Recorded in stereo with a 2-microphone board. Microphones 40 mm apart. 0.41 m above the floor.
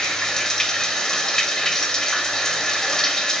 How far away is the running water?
About 1.4 m.